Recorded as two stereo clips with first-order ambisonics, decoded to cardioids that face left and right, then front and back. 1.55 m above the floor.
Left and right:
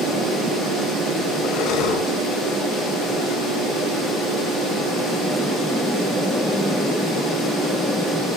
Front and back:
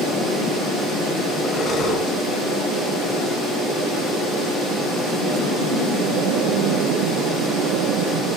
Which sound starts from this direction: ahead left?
Breathing, at 1.4 s.